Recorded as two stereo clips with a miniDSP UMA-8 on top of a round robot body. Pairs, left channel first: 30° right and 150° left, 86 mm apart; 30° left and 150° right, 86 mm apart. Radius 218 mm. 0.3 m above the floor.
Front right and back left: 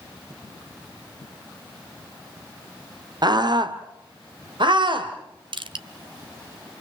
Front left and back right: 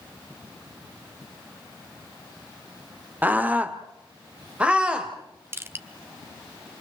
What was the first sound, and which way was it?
A scream, 145° left.